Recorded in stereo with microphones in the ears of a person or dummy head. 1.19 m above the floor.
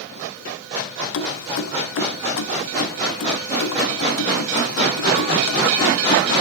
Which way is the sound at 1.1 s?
70° left (ahead or behind).